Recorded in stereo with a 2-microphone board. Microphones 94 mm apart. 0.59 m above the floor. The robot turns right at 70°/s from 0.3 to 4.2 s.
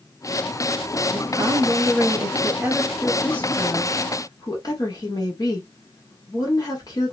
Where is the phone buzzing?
No phone buzzing in this recording.